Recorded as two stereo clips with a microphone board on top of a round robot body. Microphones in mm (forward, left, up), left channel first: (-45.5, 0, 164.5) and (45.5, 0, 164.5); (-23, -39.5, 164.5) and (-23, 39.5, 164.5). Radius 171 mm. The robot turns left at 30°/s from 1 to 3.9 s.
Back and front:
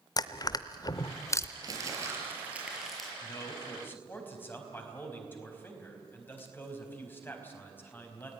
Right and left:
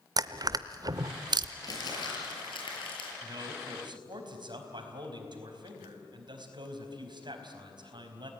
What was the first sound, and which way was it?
Crushing, 130° left.